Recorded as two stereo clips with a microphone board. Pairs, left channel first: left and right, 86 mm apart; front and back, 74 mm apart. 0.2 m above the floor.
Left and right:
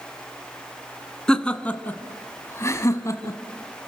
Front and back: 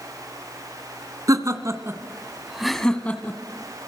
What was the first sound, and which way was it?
Laughter, 170° left.